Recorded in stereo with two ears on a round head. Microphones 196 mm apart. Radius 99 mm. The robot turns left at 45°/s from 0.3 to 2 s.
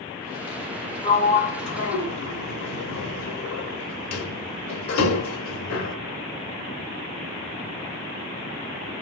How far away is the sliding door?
About 0.6 m.